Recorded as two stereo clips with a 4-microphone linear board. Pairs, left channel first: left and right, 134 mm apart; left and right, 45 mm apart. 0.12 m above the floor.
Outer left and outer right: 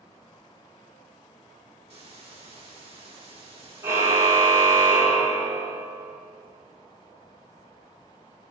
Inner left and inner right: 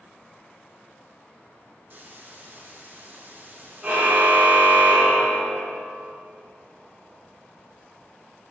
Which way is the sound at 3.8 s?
20° right (ahead or behind).